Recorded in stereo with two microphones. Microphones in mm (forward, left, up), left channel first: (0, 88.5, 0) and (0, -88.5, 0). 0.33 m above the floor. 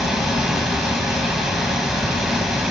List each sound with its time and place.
0.0 s running water: centre (ahead or behind), 1.4 m